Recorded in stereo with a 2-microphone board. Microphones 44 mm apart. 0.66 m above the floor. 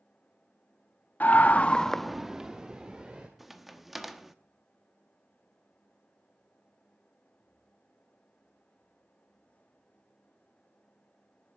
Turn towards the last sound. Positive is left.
turn(degrees=0)  # may be behind; listen again after turning